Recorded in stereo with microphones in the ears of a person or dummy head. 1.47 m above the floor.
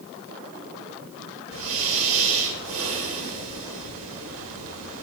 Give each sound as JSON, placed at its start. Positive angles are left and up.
{"t": 1.5, "sound": "breathing", "side_deg": -40, "distance_m": 7.5}